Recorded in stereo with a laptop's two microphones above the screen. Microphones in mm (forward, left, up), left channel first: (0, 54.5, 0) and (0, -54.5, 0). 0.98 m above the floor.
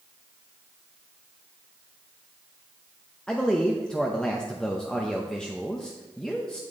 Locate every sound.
3.3 s a man speaking: 5° left (ahead or behind), 0.7 m